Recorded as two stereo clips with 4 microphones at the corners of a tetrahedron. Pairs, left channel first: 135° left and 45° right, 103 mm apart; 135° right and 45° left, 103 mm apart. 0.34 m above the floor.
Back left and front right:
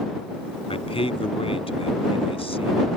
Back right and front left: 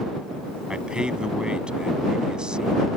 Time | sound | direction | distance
0.7 | a man speaking | 125° left | ?